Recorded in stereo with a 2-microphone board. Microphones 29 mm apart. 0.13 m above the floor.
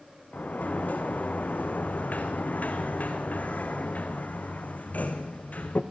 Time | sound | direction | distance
0.3 | a sliding door | 55° left (ahead or behind) | 2.5 m